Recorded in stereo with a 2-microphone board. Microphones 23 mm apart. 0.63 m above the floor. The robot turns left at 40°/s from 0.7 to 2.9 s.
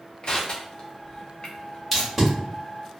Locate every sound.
0.2 s crushing: 40° left (ahead or behind), 0.7 m; by 1.8 s 35° left (ahead or behind), 0.7 m
1.9 s tape being pulled: 5° left (ahead or behind), 1.7 m; by 2.3 s 10° right (ahead or behind), 1.7 m